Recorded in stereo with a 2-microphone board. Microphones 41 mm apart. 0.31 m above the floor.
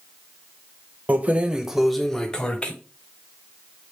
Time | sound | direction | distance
1.1 | keys jangling | 40° right (ahead or behind) | 0.7 m